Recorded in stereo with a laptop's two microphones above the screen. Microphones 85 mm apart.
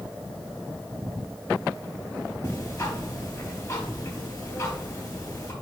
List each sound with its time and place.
2.4 s ticking: 35° left (ahead or behind), 4.5 m